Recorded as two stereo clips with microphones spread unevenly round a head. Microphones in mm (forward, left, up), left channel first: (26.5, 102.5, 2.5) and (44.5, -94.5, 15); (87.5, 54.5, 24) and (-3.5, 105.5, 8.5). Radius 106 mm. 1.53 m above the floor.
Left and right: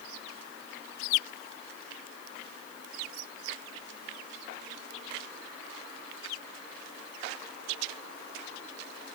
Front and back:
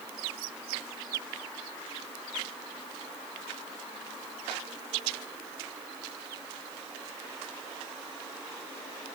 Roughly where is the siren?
I don't hear a siren.